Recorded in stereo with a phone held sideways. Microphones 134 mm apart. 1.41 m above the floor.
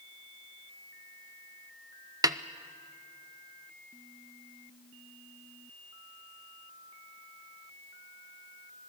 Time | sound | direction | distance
2.2 | a snare drum | 25° right (ahead or behind) | 0.6 m